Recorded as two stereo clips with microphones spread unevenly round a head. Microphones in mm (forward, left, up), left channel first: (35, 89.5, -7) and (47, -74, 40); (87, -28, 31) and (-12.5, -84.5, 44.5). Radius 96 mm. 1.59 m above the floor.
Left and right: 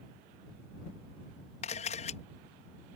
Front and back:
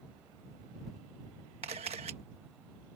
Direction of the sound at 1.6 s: 155° left.